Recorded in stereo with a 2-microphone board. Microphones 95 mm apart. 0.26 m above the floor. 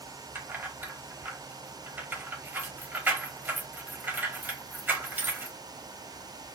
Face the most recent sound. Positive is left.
turn(degrees=-20)  # may be behind; listen again after turning